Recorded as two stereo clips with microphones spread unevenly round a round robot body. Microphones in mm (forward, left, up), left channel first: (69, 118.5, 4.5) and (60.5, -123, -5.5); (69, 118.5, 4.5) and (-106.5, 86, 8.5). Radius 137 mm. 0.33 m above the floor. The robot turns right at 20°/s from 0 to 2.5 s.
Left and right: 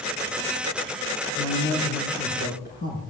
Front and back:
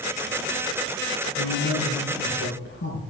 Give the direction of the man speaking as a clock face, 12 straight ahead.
12 o'clock.